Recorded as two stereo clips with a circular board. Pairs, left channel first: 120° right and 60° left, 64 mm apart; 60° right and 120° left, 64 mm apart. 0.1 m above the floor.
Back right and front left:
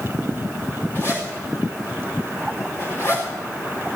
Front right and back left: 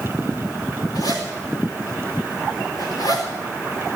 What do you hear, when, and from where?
0.9 s a zipper: 65° right, 5 m